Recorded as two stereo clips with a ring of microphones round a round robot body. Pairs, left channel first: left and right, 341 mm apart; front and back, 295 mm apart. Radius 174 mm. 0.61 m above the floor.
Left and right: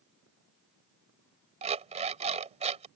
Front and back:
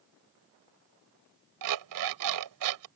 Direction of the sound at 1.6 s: 160° right.